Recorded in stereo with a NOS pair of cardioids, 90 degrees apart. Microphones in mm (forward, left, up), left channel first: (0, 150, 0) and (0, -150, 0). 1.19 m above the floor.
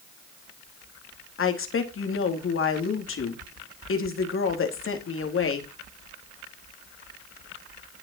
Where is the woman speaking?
45° left, 3 m.